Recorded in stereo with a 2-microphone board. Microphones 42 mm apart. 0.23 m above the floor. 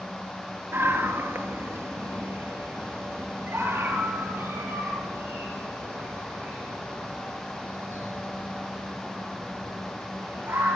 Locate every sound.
0.7 s a scream: 70° right (ahead or behind), 4 m; by 10.8 s 65° right (ahead or behind), 17 m